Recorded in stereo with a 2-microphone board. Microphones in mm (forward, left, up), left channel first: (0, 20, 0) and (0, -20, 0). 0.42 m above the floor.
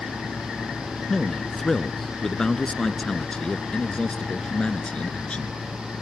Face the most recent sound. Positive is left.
turn(degrees=30)  # may be behind; listen again after turning